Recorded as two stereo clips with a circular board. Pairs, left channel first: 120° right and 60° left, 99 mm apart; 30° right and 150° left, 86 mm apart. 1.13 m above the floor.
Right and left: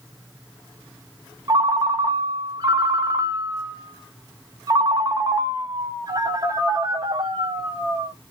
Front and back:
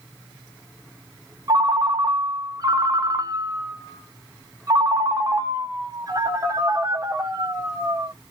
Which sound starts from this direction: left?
A ringtone, at 1.5 s.